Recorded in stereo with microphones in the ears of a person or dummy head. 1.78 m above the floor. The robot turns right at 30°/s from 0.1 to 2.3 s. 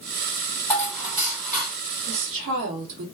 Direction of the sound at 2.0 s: 60° right (ahead or behind).